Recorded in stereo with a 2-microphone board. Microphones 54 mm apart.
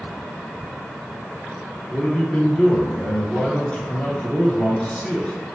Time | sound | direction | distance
1.9 | a man speaking | 20° left (ahead or behind) | 1.2 m